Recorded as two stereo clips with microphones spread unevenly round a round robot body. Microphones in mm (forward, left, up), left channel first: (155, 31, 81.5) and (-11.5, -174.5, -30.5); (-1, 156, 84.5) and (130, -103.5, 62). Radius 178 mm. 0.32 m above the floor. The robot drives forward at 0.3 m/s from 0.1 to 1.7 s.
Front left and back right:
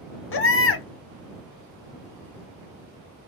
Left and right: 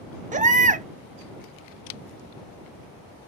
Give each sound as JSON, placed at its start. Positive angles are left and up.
{"t": 0.3, "sound": "a baby crying", "azimuth_deg": 5, "distance_m": 0.8}